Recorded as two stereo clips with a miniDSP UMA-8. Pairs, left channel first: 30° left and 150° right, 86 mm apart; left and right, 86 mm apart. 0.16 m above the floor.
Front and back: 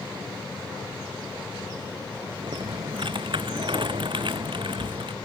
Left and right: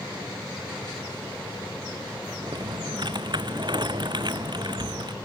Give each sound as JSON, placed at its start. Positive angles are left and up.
{"t": 2.4, "sound": "typing on a keyboard", "azimuth_deg": -125}